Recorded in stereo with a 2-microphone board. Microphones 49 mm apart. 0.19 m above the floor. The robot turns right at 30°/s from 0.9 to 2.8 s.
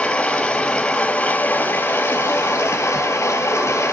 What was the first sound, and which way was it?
Running water, 20° left.